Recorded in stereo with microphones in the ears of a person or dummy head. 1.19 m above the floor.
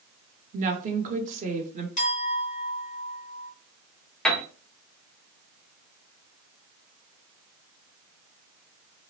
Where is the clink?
35° left (ahead or behind), 1.3 m.